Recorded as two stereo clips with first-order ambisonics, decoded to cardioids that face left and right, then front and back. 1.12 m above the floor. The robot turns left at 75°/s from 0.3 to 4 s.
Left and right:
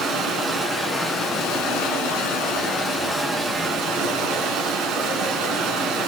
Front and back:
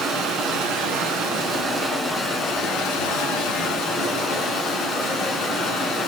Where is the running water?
135° right, 2.5 m; by 6.1 s 50° right, 2.5 m.